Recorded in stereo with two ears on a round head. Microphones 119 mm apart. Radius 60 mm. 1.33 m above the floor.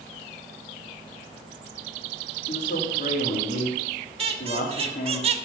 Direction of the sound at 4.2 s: 50° right (ahead or behind).